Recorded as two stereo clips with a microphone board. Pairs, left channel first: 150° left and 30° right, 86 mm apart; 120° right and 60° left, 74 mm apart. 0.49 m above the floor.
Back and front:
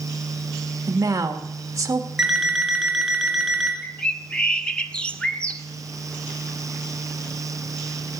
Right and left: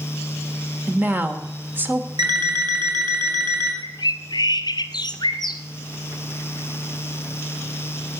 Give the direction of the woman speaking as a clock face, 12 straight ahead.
12 o'clock.